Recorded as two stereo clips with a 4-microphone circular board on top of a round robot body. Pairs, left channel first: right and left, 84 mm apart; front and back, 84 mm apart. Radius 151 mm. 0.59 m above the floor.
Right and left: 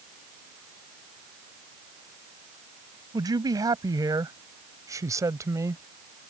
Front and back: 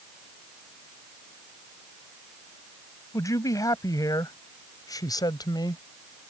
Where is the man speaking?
50° left; by 5.8 s 35° left.